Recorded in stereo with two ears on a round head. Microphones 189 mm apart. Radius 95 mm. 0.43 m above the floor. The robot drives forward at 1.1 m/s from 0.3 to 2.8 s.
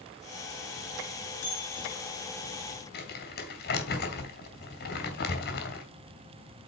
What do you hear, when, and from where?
1.4 s a bell: 40° left (ahead or behind), 6 m; by 2.0 s 45° left (ahead or behind), 5.5 m
2.9 s crumpling: 55° left (ahead or behind), 3.5 m